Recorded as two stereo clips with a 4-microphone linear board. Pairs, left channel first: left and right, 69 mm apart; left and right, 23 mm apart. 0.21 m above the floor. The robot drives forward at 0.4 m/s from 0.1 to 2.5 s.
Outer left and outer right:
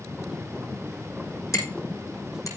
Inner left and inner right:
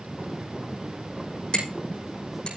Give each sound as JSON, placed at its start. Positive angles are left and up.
{"t": 1.5, "sound": "hammering", "side_deg": 50, "distance_m": 8.0}